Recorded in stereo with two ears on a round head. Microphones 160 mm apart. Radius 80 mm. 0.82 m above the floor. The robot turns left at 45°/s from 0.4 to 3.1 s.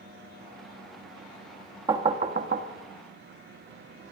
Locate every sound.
1.9 s knocking: 25° right (ahead or behind), 1.1 m; by 2.7 s 55° right (ahead or behind), 1.1 m